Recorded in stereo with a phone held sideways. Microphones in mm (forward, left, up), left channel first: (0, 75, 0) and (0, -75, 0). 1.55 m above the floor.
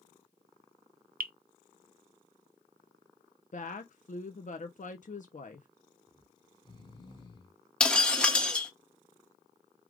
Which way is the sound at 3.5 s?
55° left (ahead or behind).